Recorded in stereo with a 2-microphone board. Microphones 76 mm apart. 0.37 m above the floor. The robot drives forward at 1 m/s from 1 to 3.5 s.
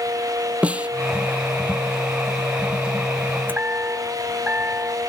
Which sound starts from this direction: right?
A chime, at 3.5 s.